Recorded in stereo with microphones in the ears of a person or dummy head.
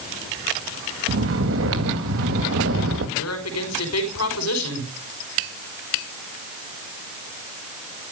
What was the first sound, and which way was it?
Snoring, 65° right (ahead or behind).